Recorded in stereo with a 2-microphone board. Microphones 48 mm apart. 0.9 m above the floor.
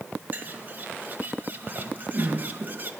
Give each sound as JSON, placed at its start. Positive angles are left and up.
{"t": 0.3, "sound": "a bird", "side_deg": -40, "distance_m": 1.8}